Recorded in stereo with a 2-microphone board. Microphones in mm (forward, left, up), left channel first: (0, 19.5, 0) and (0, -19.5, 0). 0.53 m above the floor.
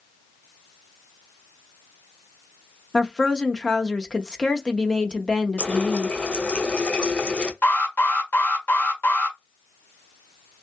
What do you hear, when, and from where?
2.9 s a woman speaking: 20° left (ahead or behind), 0.7 m
5.6 s a running tap: 30° left (ahead or behind), 0.6 m
7.6 s an alarm: 60° left (ahead or behind), 1.6 m